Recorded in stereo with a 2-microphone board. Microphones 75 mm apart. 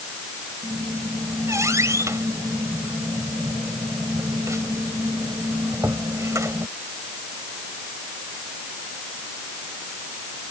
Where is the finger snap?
No finger snap in this recording.